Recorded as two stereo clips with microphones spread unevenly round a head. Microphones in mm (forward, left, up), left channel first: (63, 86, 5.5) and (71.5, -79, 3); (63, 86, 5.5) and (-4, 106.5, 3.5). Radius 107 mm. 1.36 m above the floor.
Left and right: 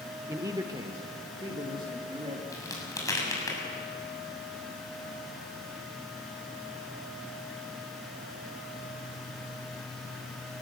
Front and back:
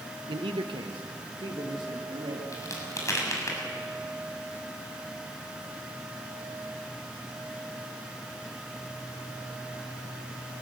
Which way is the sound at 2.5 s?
25° left.